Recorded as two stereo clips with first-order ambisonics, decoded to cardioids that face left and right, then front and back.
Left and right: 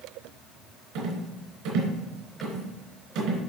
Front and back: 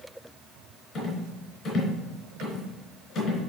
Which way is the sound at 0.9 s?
65° right.